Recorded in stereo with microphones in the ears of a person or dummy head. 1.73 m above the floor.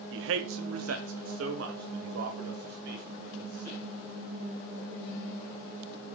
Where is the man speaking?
75° right (ahead or behind), 0.8 m; by 3.8 s 55° right (ahead or behind), 3 m.